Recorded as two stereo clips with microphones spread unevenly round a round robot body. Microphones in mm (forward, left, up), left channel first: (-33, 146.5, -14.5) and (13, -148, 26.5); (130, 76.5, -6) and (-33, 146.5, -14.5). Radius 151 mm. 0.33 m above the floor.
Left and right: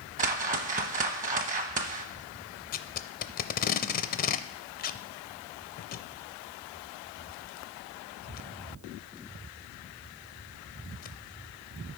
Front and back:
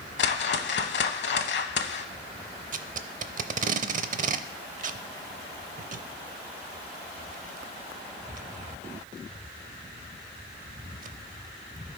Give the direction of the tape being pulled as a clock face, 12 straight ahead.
7 o'clock.